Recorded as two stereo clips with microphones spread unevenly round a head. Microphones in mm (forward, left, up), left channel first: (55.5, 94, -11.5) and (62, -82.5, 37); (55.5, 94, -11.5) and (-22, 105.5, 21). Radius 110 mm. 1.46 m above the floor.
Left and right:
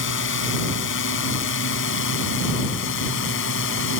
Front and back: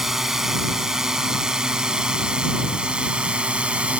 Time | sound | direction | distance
0.0 | a drone | 85° left | ?